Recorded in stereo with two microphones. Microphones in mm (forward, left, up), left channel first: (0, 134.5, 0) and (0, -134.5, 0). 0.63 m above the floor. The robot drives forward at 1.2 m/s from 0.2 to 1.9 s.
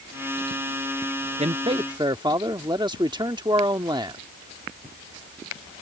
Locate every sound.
1.4 s a man speaking: 25° right (ahead or behind); by 4.2 s 15° right (ahead or behind)